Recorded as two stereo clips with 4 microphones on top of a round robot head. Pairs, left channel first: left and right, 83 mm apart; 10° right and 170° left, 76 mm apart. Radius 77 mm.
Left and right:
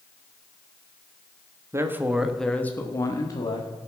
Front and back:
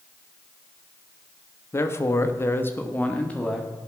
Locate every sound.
1.7 s a man speaking: 50° right, 1.3 m; by 3.7 s 65° left, 1.9 m